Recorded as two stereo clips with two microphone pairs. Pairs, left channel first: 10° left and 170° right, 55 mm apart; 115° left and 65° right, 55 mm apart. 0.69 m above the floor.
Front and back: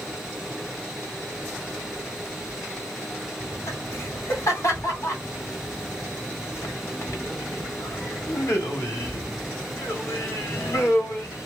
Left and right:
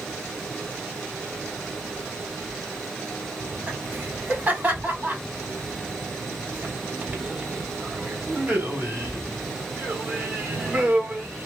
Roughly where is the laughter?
Ahead.